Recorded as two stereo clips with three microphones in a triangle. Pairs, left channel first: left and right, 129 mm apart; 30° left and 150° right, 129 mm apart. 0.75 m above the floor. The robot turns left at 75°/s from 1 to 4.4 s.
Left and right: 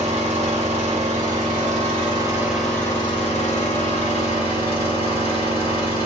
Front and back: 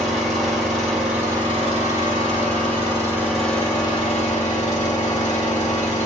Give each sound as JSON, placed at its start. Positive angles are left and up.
{"t": 0.0, "sound": "an engine running", "azimuth_deg": -60, "distance_m": 1.5}